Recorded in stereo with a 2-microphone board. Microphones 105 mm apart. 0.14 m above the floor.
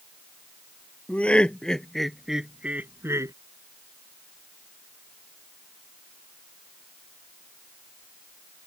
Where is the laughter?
10° left (ahead or behind); by 3.3 s 30° right (ahead or behind).